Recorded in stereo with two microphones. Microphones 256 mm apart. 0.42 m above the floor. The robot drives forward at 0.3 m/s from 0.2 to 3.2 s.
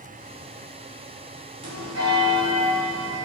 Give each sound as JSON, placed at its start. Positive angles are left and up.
{"t": 1.6, "sound": "a bell", "side_deg": -65, "distance_m": 1.7}